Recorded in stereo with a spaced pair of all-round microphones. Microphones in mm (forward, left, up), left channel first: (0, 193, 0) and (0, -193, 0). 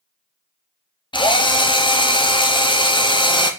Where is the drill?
15° left (ahead or behind), 0.6 m.